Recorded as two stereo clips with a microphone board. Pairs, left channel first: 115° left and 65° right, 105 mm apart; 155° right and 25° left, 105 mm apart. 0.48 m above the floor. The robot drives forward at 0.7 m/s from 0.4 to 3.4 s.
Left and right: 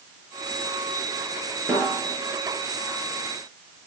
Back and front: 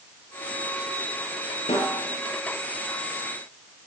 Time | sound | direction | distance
1.7 | a snare drum | 135° right | 7 m